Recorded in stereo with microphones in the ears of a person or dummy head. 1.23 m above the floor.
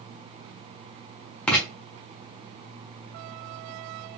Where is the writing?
5° left (ahead or behind), 1.2 m.